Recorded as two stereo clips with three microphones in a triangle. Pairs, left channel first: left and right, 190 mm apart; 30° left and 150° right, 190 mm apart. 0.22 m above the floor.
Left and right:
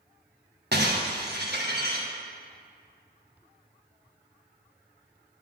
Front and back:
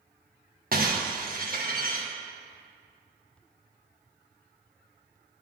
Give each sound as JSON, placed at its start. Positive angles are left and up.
{"t": 0.7, "sound": "breaking glass", "azimuth_deg": -115, "distance_m": 2.5}